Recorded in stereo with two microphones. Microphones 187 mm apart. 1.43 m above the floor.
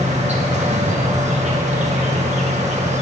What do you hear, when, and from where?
0.0 s an insect: 40° right (ahead or behind), 1.6 m